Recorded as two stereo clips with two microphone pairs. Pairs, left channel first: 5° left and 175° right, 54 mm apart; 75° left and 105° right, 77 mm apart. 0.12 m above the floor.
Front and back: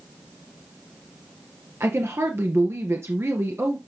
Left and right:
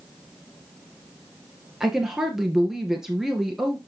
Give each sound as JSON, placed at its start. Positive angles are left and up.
{"t": 1.8, "sound": "a woman speaking", "azimuth_deg": 170, "distance_m": 1.7}